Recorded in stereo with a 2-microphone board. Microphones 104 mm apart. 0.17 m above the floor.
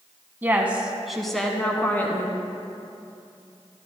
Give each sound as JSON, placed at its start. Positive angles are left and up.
{"t": 0.4, "sound": "a woman speaking", "side_deg": -20, "distance_m": 1.1}